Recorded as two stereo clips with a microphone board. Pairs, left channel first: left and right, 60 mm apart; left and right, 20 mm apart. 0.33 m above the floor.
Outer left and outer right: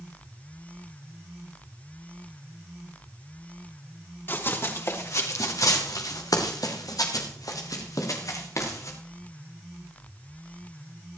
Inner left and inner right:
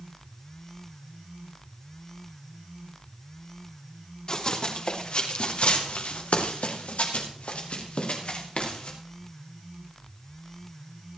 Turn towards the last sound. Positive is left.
turn(degrees=55)  # may be behind; listen again after turning